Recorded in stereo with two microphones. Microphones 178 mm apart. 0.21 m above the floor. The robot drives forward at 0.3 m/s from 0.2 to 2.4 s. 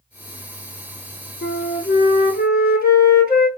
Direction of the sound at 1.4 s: 80° left.